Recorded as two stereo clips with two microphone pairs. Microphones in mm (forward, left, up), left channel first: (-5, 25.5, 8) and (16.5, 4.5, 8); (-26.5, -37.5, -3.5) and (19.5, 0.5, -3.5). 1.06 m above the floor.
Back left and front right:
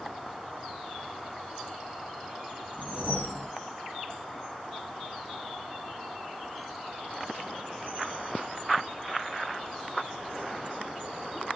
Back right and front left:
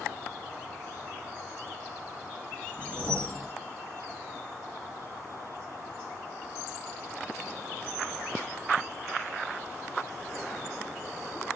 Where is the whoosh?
150° left, 0.8 m.